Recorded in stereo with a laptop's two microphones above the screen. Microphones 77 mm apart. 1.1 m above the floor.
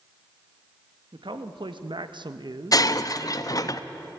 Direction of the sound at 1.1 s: 75° right (ahead or behind).